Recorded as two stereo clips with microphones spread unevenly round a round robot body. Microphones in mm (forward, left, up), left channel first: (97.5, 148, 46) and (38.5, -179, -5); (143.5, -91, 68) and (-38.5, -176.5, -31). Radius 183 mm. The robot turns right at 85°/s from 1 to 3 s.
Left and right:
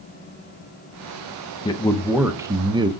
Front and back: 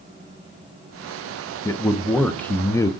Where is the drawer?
No drawer in this recording.